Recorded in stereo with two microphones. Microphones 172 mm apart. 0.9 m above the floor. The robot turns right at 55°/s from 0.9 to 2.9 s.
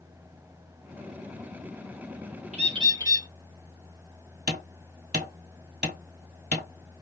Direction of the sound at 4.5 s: 65° right (ahead or behind).